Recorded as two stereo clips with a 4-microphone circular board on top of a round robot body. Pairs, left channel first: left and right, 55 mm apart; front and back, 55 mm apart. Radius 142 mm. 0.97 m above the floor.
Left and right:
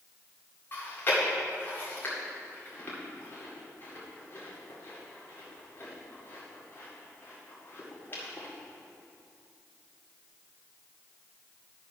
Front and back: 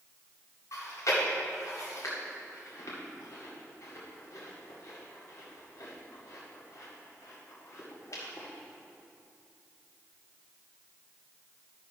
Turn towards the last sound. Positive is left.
turn(degrees=35)